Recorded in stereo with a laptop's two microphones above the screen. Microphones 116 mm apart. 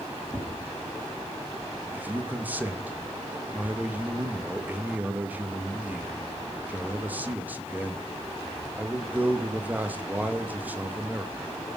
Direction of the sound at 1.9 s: 15° right (ahead or behind).